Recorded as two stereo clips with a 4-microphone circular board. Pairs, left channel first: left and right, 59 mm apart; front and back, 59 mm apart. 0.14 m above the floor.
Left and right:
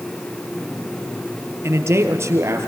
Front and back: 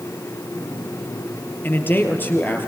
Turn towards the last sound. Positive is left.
turn(degrees=-55)